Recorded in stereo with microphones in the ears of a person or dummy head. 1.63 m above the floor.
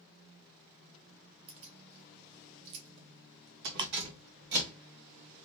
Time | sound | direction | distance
1.5 | keys jangling | 30° right (ahead or behind) | 1.3 m
3.8 | ticking | 20° right (ahead or behind) | 0.6 m